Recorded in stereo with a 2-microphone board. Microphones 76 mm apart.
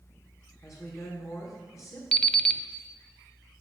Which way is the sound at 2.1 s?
10° left (ahead or behind).